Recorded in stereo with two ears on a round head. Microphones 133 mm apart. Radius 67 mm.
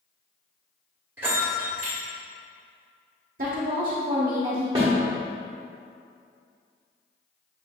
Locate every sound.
1.2 s a bell: 15° right (ahead or behind), 1.3 m
3.4 s a woman speaking: 60° right (ahead or behind), 0.8 m
4.8 s a snare drum: 25° right (ahead or behind), 1.2 m